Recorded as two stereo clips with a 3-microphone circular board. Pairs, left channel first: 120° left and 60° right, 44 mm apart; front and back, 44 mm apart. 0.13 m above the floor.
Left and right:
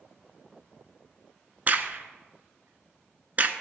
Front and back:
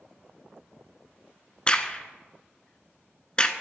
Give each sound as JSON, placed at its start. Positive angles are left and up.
{"t": 1.7, "sound": "a crack", "azimuth_deg": -50, "distance_m": 0.5}